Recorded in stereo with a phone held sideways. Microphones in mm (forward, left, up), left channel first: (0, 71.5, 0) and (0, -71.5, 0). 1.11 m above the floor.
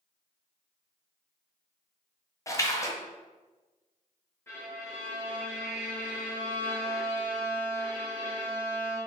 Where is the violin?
15° left (ahead or behind), 0.8 m.